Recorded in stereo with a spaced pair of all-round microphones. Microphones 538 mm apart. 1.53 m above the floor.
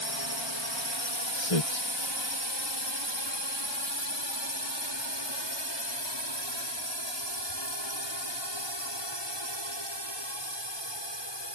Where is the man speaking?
85° left.